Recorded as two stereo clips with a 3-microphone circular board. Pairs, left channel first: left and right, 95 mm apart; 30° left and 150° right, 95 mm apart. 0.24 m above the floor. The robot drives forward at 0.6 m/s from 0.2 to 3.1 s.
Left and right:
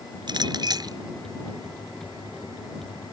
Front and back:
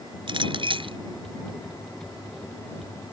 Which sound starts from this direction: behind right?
A clink, at 0.3 s.